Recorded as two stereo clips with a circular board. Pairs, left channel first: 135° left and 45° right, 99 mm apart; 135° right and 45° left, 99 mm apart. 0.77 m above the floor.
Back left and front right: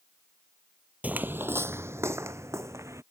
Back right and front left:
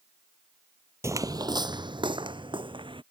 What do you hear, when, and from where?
1.0 s footsteps: 15° left